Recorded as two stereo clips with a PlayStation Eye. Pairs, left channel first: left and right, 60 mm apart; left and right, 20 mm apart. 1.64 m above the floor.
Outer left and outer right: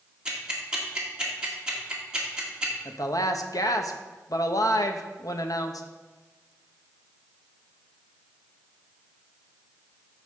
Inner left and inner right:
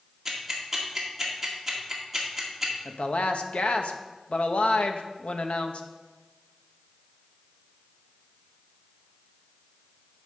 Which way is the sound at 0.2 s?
15° right (ahead or behind).